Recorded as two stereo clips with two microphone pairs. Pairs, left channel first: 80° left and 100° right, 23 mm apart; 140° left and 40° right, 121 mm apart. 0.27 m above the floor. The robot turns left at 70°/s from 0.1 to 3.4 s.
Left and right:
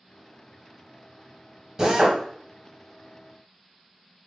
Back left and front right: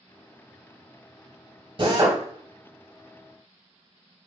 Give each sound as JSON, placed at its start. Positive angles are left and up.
{"t": 1.8, "sound": "a drill", "azimuth_deg": -45, "distance_m": 0.9}